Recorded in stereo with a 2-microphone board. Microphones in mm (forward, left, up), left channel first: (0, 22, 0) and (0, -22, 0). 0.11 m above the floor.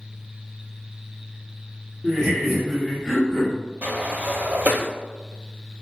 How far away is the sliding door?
About 0.6 m.